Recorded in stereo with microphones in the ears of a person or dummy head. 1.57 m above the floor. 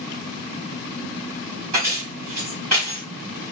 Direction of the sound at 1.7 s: 35° right (ahead or behind).